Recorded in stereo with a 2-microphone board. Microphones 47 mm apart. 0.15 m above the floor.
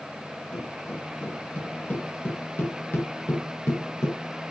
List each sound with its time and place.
0.5 s footsteps: 35° left (ahead or behind), 7.5 m; by 4.2 s 60° left (ahead or behind), 5.5 m